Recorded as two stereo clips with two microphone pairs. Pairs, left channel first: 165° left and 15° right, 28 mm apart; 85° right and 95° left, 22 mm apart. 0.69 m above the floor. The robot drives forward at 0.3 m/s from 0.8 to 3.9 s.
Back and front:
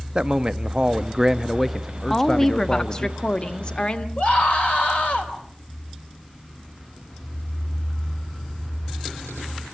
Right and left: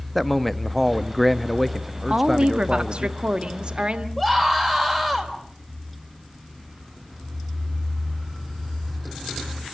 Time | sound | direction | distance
0.1 | a man speaking | 10° right | 0.5 m
2.1 | a woman speaking | 95° left | 0.9 m
4.2 | a scream | 160° right | 4 m